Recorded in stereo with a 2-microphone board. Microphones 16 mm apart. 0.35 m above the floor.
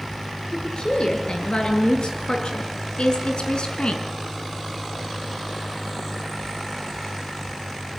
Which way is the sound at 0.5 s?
70° left (ahead or behind).